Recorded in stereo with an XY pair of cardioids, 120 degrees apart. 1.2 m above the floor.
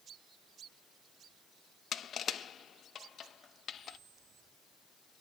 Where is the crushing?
45° left, 0.8 m.